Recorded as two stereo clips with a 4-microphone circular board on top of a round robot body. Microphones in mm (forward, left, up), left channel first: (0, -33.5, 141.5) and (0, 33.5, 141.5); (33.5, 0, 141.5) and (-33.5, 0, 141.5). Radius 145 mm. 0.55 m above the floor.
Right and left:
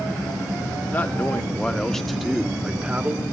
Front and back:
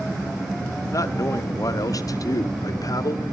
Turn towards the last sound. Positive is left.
turn(degrees=25)